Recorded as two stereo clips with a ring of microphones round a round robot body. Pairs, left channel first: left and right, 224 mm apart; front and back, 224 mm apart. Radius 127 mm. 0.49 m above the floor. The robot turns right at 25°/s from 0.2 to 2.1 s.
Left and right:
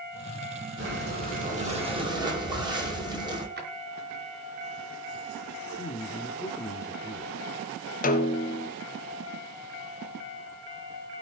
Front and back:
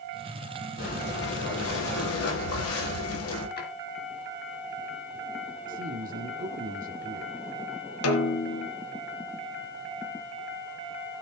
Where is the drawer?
45° right, 5 m.